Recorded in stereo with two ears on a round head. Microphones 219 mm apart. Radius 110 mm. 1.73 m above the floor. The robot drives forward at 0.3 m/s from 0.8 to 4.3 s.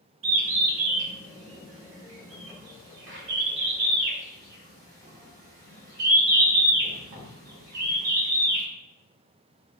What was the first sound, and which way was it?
A bird, 55° right (ahead or behind).